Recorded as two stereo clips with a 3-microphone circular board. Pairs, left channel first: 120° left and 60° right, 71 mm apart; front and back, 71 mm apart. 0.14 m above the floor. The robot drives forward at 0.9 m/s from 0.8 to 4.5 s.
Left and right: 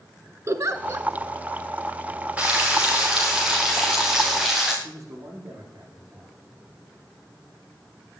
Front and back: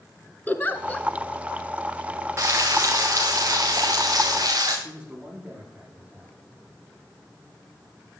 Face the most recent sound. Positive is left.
turn(degrees=-105)